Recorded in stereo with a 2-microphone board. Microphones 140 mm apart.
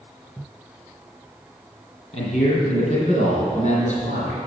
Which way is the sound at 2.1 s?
55° left (ahead or behind).